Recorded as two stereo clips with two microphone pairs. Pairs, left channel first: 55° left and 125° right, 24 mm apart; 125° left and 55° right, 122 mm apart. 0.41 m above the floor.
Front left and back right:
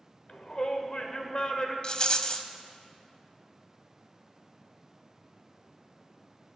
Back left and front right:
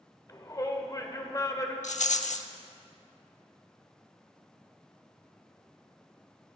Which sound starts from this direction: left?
A shout, at 0.3 s.